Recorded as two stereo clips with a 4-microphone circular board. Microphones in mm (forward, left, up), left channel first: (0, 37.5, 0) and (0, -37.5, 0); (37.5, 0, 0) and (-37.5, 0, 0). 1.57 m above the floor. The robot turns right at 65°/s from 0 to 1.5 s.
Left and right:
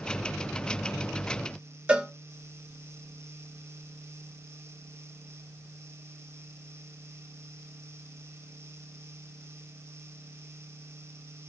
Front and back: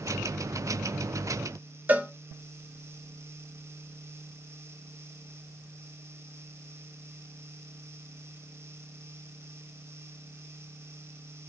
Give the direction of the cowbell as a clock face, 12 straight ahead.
5 o'clock.